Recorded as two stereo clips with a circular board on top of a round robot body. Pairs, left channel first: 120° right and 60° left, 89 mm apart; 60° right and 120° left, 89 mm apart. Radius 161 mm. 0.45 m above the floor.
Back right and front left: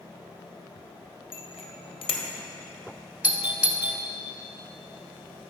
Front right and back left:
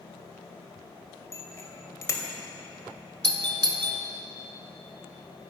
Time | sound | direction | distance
1.3 | a bicycle bell | 115° right | 2 m
3.2 | a doorbell | 130° left | 1.7 m